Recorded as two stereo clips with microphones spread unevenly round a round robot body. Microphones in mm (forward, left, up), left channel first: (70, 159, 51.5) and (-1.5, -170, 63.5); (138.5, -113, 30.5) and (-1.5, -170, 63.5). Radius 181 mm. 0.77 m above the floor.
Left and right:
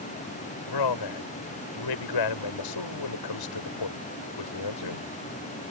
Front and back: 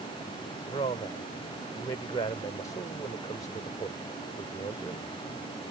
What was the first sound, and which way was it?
A man speaking, 95° left.